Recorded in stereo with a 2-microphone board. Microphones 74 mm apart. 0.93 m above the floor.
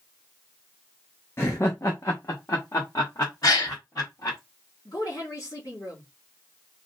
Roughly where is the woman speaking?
Left.